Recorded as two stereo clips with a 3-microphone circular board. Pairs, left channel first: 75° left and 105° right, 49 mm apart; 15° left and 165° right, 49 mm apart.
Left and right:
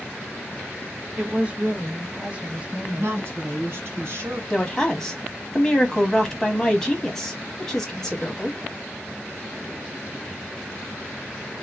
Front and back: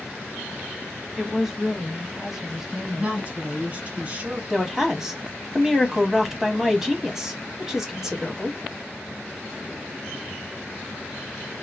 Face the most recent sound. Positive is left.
turn(degrees=135)